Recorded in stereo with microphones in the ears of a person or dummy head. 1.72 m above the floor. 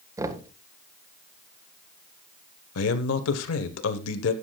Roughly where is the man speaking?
Left.